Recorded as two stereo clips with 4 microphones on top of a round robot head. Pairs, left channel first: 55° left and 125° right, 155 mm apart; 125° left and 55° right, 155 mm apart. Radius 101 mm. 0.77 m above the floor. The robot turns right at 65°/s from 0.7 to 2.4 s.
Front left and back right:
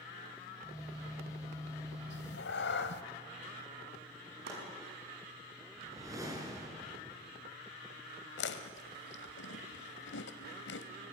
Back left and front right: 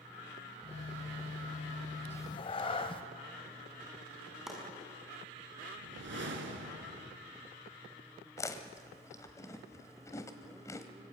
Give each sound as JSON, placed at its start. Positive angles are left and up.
{"t": 2.1, "sound": "a cat meowing", "azimuth_deg": 50, "distance_m": 1.6}
{"t": 4.5, "sound": "chopping", "azimuth_deg": -140, "distance_m": 6.5}
{"t": 5.8, "sound": "a whoosh", "azimuth_deg": -55, "distance_m": 3.5}
{"t": 8.4, "sound": "chewing", "azimuth_deg": 55, "distance_m": 1.4}